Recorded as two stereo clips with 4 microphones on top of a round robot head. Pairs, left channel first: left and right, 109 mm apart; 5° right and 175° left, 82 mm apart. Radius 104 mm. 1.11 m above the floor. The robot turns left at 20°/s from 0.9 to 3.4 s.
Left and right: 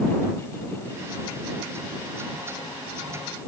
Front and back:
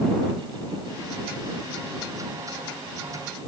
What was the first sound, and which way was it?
Only background noise.